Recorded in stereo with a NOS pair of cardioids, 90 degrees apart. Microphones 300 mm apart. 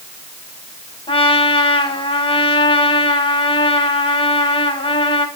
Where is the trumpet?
15° left, 4.5 m.